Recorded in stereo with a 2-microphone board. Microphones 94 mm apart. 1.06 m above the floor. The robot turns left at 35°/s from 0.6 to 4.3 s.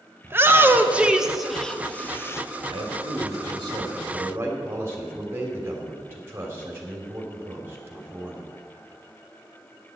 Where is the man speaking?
100° right, 2.5 m; by 8.5 s 155° right, 2.5 m.